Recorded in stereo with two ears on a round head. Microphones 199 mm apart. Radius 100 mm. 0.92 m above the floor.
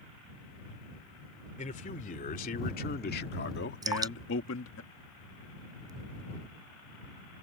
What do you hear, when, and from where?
1.6 s a man speaking: 35° left (ahead or behind); by 4.8 s 65° left (ahead or behind)
3.8 s dripping: 20° right (ahead or behind)